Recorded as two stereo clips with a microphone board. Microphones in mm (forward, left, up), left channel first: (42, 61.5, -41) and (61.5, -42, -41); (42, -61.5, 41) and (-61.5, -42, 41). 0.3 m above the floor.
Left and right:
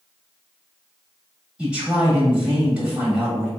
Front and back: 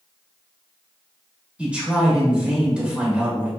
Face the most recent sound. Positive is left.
turn(degrees=-135)